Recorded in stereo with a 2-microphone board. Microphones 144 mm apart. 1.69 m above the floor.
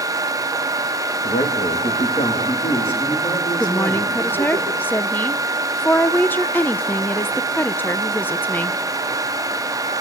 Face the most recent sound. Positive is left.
turn(degrees=15)  # may be behind; listen again after turning